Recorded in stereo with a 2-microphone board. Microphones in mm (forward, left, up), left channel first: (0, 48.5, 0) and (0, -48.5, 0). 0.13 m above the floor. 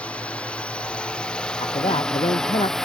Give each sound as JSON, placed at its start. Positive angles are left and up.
{"t": 0.0, "sound": "a drone", "side_deg": 10}
{"t": 1.6, "sound": "a man speaking", "side_deg": 75}